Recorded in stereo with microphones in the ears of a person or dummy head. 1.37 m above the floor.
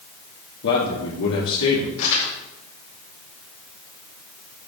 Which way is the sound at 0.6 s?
75° left (ahead or behind).